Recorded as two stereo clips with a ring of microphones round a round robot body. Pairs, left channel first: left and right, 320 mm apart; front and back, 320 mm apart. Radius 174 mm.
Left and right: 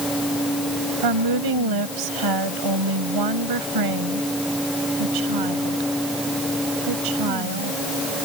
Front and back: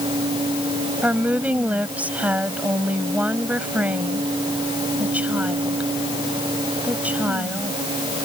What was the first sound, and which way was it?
A woman speaking, 95° right.